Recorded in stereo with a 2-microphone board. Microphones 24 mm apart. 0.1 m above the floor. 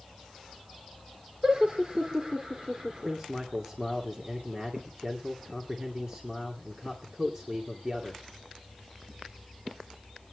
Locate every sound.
1.4 s laughter: 35° right (ahead or behind), 3 m
3.0 s a man speaking: 30° right (ahead or behind), 2 m